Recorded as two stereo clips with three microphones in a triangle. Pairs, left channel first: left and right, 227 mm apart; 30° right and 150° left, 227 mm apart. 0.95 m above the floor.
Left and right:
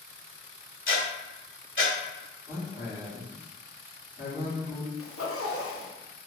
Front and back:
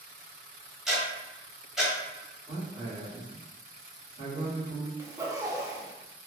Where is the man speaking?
45° left, 2.0 m.